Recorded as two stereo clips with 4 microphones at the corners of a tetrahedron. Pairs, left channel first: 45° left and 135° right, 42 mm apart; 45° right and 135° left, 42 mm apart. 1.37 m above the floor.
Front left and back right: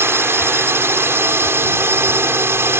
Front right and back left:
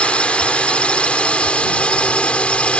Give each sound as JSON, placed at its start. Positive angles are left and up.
{"t": 0.0, "sound": "a drone", "azimuth_deg": -110}